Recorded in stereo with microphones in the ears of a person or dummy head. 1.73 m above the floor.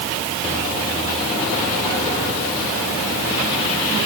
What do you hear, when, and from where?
Only background noise.